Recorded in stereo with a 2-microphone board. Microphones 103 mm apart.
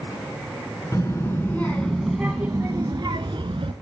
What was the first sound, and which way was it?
A child speaking, 30° left (ahead or behind).